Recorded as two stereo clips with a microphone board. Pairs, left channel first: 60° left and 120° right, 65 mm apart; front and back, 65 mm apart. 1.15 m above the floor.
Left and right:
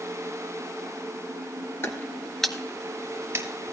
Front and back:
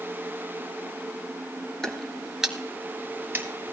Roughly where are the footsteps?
Left.